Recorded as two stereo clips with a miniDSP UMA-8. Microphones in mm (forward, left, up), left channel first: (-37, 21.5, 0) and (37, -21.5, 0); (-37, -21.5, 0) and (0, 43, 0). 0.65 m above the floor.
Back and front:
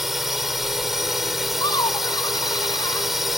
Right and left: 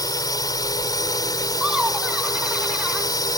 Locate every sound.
0.0 s a drone: 115° right
1.6 s laughter: 135° left